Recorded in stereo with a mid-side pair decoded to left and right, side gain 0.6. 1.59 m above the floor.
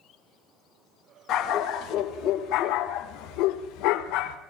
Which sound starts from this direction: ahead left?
A dog barking, at 1.3 s.